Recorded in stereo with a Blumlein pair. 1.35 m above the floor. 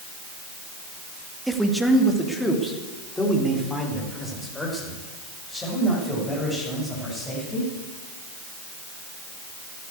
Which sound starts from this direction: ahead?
A man speaking, at 1.5 s.